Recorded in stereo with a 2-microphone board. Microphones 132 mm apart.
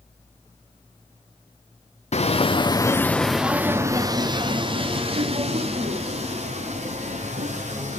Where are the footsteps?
55° left (ahead or behind), 0.8 m; by 8.0 s 60° right (ahead or behind), 3 m.